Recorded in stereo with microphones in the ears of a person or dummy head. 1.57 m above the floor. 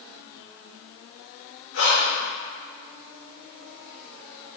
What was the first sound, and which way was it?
Breathing, 65° left (ahead or behind).